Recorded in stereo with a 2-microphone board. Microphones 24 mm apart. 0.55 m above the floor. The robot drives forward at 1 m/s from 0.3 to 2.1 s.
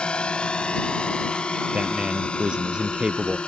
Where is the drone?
45° left (ahead or behind); by 3.5 s 50° left (ahead or behind).